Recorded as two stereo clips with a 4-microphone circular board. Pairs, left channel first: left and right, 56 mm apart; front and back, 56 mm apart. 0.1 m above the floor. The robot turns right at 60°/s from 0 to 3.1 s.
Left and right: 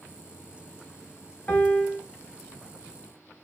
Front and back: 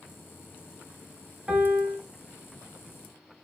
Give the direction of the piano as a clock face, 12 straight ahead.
8 o'clock.